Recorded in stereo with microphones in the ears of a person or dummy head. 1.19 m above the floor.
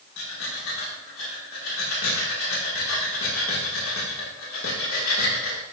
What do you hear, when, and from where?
0.2 s breathing: 80° left, 2 m